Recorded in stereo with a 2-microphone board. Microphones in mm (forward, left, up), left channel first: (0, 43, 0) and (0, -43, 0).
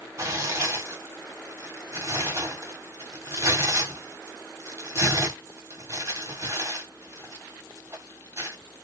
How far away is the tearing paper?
About 1.2 m.